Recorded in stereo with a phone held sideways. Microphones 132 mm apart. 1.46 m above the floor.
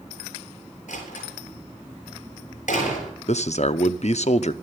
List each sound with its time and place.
0.9 s a door slam: 80° left, 8 m
3.3 s a man speaking: 65° left (ahead or behind), 0.7 m